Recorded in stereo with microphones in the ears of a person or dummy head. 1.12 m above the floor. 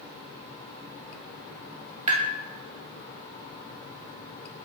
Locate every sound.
2.1 s tapping: 40° right (ahead or behind), 0.8 m